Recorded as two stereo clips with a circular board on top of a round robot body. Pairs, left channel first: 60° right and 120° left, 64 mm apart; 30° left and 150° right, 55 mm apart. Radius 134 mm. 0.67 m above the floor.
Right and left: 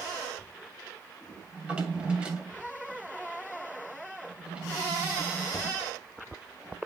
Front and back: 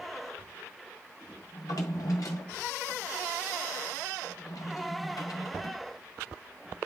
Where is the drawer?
45° left, 2.0 m.